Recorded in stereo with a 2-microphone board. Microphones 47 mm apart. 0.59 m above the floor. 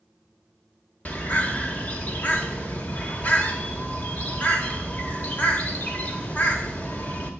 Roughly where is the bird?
Left.